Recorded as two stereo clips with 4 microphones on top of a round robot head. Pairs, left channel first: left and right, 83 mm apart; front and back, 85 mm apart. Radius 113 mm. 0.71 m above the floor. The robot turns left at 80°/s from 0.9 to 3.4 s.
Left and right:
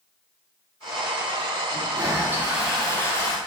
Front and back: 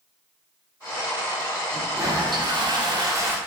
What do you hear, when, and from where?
1.7 s a toilet flushing: 105° right, 1.5 m; by 3.4 s 120° left, 1.5 m